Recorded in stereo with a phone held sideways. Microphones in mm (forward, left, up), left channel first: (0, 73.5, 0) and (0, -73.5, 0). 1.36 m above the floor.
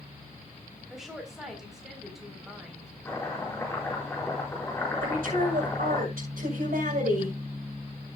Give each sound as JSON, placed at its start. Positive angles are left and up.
{"t": 0.9, "sound": "a woman speaking", "side_deg": -5, "distance_m": 4.0}
{"t": 3.0, "sound": "chopping", "side_deg": 15, "distance_m": 5.0}
{"t": 5.0, "sound": "a woman speaking", "side_deg": -75, "distance_m": 6.0}